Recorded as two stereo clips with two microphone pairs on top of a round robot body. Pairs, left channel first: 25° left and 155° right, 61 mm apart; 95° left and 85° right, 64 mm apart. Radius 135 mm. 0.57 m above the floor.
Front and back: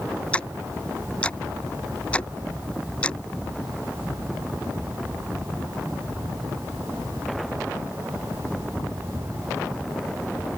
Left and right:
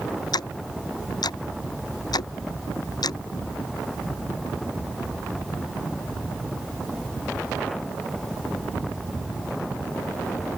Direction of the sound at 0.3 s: 95° left.